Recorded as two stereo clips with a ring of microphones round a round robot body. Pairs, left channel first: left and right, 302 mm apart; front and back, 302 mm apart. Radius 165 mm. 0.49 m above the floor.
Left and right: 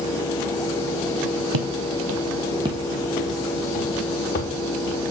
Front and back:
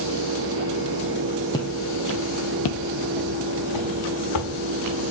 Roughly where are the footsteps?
Right.